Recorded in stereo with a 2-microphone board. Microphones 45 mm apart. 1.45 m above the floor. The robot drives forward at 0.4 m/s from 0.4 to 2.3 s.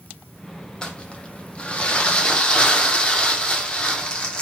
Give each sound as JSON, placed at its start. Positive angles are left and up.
{"t": 0.8, "sound": "crumpling", "side_deg": 20, "distance_m": 0.6}